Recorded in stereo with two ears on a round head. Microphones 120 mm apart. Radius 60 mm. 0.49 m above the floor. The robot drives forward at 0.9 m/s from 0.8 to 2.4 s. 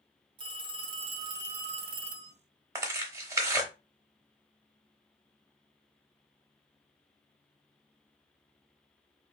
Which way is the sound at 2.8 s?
25° right (ahead or behind).